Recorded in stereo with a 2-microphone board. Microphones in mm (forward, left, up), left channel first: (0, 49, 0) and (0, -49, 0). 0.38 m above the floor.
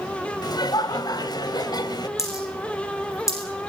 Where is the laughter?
45° left (ahead or behind), 2.5 m.